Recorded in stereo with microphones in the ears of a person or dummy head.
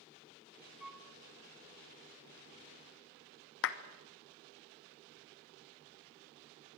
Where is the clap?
65° left (ahead or behind), 1.3 m.